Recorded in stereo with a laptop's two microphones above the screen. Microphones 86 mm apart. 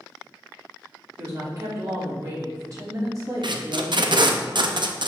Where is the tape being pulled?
60° right (ahead or behind), 0.6 m.